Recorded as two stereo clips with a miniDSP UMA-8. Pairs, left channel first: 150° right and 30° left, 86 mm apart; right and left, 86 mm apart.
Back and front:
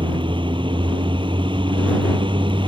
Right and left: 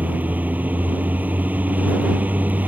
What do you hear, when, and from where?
0.0 s a vehicle: 20° left